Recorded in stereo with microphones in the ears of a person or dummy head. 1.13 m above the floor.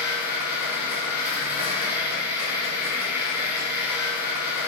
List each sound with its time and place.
0.0 s a machine running: 15° right (ahead or behind), 1.9 m